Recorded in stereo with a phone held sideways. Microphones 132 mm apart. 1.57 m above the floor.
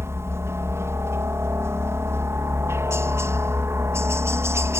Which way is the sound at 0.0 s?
20° right (ahead or behind).